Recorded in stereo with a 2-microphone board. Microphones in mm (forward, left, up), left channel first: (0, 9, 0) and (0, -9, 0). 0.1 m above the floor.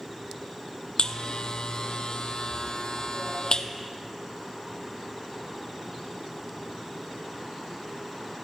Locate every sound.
1.0 s a buzzer: 50° left (ahead or behind), 0.6 m